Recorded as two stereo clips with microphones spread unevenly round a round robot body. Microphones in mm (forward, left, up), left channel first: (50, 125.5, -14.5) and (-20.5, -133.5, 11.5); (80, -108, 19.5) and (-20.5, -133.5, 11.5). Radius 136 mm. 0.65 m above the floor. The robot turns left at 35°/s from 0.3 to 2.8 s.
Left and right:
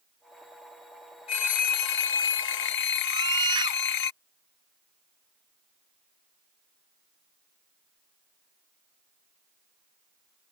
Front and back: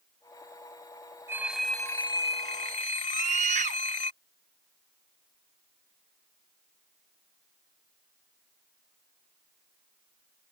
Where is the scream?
Straight behind.